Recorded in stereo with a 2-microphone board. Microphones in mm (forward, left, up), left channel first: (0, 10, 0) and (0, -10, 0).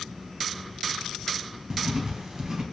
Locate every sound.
1.7 s writing: 30° right (ahead or behind), 0.8 m